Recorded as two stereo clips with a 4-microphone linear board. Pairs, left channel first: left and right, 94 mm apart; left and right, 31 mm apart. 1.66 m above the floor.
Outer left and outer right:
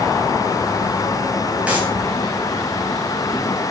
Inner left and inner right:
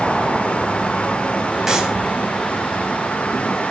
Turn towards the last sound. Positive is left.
turn(degrees=-15)  # may be behind; listen again after turning